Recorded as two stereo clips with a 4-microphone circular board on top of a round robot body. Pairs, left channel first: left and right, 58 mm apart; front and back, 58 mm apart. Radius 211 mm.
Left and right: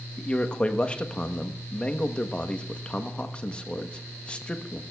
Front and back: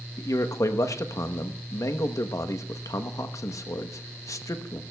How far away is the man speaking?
About 1.0 m.